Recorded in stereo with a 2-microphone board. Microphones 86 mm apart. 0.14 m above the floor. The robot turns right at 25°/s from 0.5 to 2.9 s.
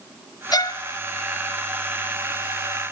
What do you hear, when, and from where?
0.5 s a violin: 55° left (ahead or behind), 0.8 m; by 0.8 s 50° left (ahead or behind), 0.8 m